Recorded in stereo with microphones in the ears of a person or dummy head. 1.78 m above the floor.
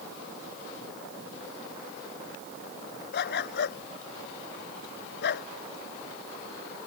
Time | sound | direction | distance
3.1 | a dog barking | 70° left (ahead or behind) | ?